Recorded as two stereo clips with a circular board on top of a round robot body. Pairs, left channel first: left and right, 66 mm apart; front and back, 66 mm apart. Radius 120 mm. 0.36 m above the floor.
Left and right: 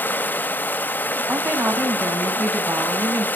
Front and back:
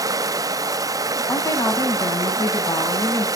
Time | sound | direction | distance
0.0 | running water | 150° left | 1.0 m
1.3 | a woman speaking | 35° right | 3.5 m